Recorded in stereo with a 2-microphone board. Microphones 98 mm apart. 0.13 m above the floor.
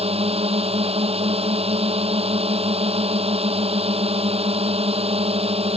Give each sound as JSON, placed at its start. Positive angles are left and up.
{"t": 0.0, "sound": "a drone", "side_deg": -70}